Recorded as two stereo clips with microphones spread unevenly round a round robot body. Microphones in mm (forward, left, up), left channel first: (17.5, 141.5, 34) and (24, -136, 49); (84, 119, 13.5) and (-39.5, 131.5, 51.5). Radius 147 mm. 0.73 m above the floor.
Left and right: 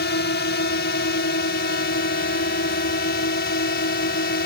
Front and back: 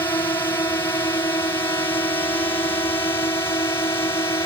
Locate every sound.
0.0 s a drone: 50° left; by 4.5 s 45° left